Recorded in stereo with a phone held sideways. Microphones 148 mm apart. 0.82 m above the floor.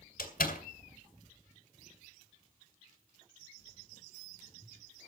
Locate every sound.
0.2 s a door slam: 80° left, 2.5 m